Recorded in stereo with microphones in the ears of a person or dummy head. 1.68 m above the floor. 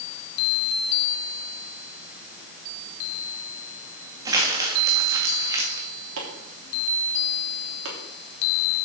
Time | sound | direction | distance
4.2 | crumpling | 20° right (ahead or behind) | 1.7 m
6.2 | chopping | 80° right | 3 m